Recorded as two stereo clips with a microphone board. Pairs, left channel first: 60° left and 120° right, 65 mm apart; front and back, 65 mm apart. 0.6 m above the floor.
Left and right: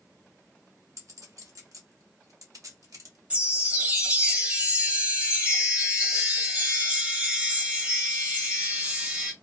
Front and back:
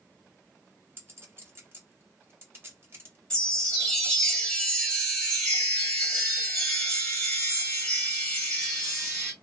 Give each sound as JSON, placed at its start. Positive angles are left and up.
{"t": 1.0, "sound": "a clink", "azimuth_deg": -130, "distance_m": 1.1}
{"t": 3.3, "sound": "a chime", "azimuth_deg": -75, "distance_m": 1.1}